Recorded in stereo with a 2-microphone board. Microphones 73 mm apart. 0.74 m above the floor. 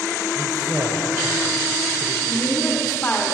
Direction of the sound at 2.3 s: 20° left (ahead or behind).